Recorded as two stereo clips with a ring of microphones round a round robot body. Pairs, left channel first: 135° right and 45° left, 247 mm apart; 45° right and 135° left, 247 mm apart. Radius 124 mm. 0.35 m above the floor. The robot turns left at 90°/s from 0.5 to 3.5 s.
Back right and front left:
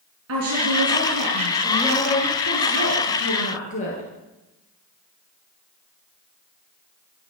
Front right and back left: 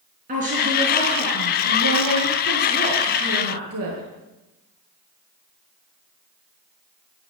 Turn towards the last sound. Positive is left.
turn(degrees=165)